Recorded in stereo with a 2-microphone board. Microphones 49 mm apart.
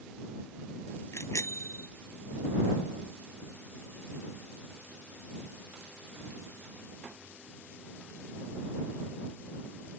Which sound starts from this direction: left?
A bicycle bell, at 1.1 s.